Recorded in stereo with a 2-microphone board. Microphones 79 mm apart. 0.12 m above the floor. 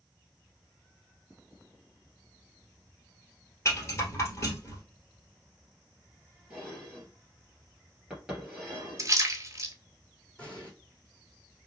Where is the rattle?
35° left (ahead or behind), 1.8 m.